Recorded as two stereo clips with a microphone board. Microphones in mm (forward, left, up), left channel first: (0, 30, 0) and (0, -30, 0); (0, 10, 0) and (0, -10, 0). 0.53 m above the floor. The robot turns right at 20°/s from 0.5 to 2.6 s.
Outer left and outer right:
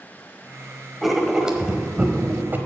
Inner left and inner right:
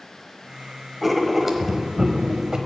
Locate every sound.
1.0 s writing: centre (ahead or behind), 1.1 m; by 2.6 s 35° right (ahead or behind), 1.1 m